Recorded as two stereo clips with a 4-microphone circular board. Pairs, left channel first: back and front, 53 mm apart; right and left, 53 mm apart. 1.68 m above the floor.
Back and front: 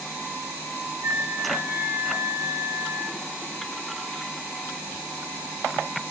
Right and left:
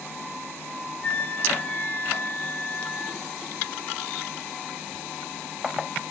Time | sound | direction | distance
1.0 | a flute | 35° right | 2.5 m